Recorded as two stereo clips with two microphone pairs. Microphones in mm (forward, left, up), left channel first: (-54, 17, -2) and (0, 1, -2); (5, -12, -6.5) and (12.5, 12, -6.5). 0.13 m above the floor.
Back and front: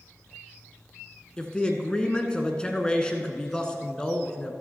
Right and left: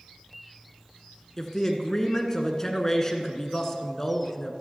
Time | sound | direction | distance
1.4 | a man speaking | 155° right | 1.2 m